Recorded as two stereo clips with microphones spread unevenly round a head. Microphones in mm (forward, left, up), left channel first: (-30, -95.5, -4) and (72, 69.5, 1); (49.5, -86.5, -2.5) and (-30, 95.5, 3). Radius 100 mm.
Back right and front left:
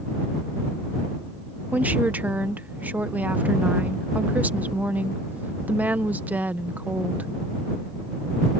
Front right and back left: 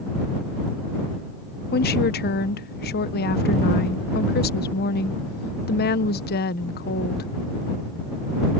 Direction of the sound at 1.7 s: 25° right.